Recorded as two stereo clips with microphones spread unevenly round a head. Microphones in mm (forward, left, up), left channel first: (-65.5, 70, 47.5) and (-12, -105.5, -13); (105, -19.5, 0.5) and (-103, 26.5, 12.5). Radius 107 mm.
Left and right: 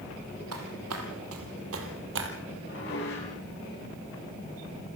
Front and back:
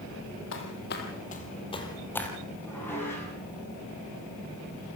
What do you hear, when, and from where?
0.5 s footsteps: 40° right, 3.5 m; by 2.3 s 100° right, 3 m
2.6 s dishes clattering: 70° left, 9 m